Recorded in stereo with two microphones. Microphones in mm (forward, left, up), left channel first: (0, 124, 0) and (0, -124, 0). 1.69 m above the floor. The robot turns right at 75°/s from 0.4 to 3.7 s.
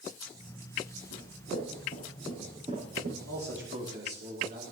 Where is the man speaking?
75° right, 5.5 m; by 4.6 s 40° right, 5.5 m.